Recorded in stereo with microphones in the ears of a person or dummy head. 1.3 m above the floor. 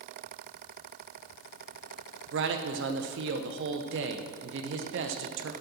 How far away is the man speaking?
About 0.9 m.